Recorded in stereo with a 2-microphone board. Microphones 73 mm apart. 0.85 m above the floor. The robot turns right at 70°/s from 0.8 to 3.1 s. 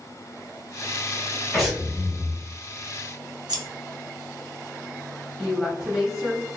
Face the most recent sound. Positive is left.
turn(degrees=-10)  # may be behind; listen again after turning